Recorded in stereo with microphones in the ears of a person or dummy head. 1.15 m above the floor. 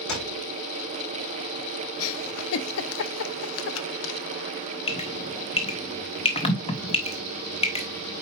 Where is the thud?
70° left (ahead or behind), 5 m.